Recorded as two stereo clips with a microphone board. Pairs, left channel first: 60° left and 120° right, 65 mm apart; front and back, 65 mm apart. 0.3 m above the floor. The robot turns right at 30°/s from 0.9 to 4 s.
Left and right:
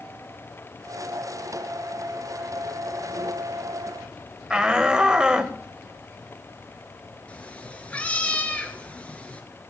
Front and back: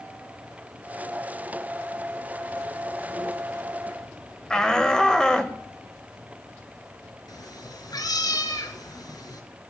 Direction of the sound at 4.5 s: 60° right.